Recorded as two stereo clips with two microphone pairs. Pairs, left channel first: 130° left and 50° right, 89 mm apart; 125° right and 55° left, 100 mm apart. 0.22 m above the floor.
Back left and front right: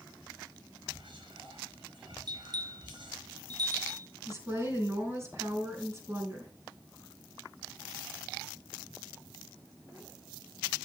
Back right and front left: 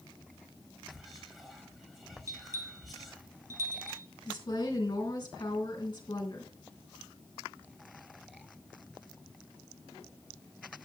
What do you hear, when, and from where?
0.9 s whispering: 35° right, 4.5 m
2.3 s a bell: 5° right, 1.1 m
4.3 s a woman speaking: 100° right, 3 m